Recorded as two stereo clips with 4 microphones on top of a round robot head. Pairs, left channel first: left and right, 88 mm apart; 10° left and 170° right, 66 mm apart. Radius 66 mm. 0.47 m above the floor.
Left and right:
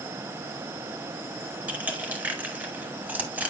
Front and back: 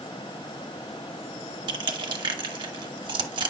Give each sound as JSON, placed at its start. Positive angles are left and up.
{"t": 1.7, "sound": "crushing", "azimuth_deg": -165, "distance_m": 1.2}